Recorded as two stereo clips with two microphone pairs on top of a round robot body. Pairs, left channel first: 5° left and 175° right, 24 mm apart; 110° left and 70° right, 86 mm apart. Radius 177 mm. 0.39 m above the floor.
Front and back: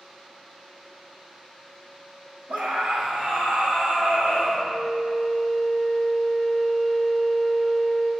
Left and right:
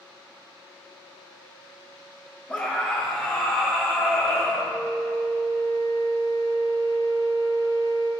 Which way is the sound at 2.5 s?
Straight behind.